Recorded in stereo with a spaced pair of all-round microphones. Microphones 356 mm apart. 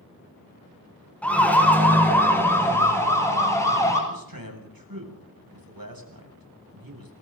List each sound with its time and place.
1.2 s a siren: 5° left (ahead or behind), 6 m; by 4.0 s 10° left (ahead or behind), 9 m
4.1 s a man speaking: 70° right (ahead or behind), 7 m